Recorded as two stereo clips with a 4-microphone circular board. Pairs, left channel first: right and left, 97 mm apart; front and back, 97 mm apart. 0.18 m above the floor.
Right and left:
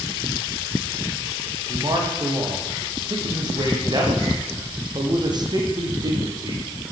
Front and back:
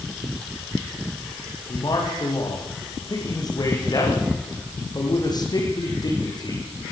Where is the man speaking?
45° left, 9.5 m.